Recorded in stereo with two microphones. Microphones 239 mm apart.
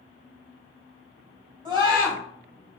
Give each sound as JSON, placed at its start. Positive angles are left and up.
{"t": 1.6, "sound": "a scream", "side_deg": -20, "distance_m": 1.5}